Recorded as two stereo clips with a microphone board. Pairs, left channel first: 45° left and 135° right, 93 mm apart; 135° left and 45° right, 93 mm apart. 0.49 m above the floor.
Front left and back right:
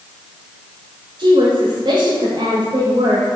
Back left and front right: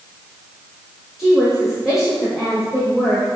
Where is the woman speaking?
130° right, 1.7 m.